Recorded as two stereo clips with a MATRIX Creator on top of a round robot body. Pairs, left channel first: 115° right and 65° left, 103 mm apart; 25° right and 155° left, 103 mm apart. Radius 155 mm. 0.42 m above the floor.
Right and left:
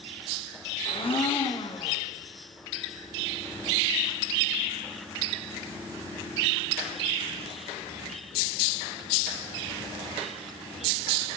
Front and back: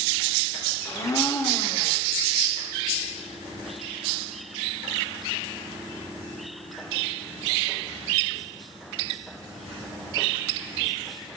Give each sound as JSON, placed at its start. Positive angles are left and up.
{"t": 0.8, "sound": "a blender", "azimuth_deg": -80, "distance_m": 1.0}